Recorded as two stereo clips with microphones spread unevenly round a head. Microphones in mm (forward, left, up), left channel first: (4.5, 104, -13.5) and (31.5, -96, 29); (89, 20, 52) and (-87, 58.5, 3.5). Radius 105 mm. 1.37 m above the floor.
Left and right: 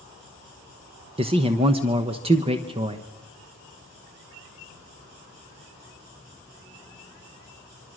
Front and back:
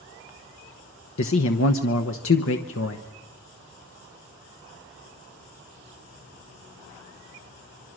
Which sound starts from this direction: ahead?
A man speaking, at 1.2 s.